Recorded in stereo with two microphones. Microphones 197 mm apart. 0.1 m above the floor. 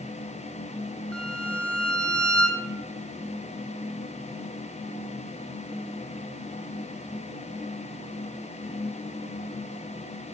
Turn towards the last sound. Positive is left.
turn(degrees=5)  # may be behind; listen again after turning